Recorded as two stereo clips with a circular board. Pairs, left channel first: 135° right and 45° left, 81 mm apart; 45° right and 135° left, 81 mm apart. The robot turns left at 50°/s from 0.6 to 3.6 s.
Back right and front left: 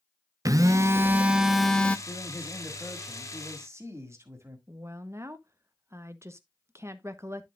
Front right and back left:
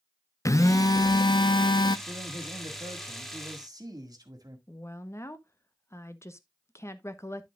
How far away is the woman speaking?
About 0.9 m.